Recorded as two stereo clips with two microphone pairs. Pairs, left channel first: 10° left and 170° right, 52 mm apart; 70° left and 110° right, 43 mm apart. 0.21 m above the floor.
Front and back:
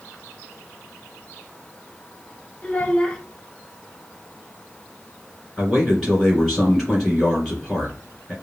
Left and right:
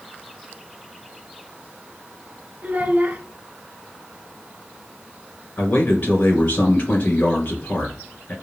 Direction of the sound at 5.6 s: 95° left.